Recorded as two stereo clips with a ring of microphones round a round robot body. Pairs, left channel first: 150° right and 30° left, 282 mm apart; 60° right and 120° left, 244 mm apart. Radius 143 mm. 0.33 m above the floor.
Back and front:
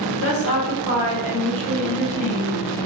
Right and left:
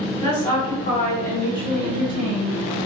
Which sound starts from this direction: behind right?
A woman speaking, at 0.2 s.